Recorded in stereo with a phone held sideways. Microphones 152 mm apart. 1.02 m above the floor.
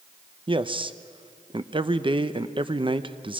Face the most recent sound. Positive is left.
turn(degrees=-35)  # may be behind; listen again after turning